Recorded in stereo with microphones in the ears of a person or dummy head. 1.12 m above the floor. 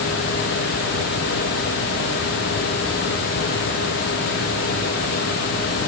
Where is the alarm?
No alarm in this recording.